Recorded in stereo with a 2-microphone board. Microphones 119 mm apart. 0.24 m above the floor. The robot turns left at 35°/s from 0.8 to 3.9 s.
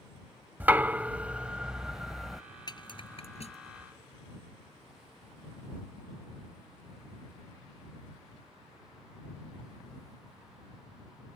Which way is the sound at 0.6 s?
15° right (ahead or behind).